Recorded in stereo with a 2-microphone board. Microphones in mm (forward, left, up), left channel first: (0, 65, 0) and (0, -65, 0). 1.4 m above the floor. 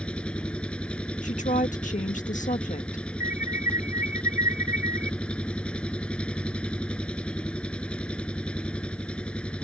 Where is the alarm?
80° left.